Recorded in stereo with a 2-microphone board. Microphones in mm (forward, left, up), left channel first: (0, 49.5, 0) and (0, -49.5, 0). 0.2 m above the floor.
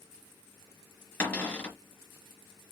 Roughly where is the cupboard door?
Centre.